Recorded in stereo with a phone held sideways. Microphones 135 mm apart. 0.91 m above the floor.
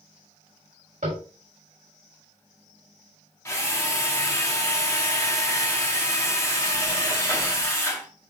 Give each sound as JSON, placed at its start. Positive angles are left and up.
{"t": 1.0, "sound": "tapping", "side_deg": -80, "distance_m": 5.0}
{"t": 3.5, "sound": "a drill", "side_deg": 20, "distance_m": 1.9}